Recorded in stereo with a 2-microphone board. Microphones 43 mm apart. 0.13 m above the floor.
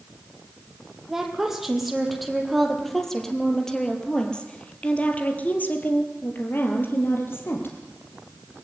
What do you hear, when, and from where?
1.1 s a woman speaking: 10° right (ahead or behind), 5 m; by 7.8 s 65° left (ahead or behind), 4 m